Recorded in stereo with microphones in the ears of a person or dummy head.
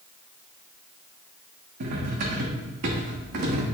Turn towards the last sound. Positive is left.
turn(degrees=-55)  # may be behind; listen again after turning